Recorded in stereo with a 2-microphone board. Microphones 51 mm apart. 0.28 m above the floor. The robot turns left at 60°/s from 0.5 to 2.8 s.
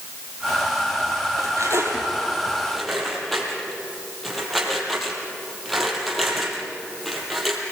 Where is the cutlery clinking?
80° right, 5 m; by 7.6 s centre (ahead or behind), 5 m.